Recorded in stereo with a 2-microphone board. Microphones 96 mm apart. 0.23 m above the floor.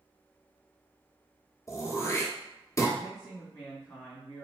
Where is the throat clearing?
30° left (ahead or behind), 0.9 m.